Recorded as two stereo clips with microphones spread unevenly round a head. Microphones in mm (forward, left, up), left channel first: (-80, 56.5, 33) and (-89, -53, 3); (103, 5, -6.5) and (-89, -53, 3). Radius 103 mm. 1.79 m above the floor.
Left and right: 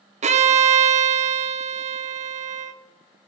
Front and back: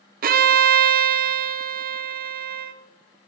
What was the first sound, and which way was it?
A violin, 115° right.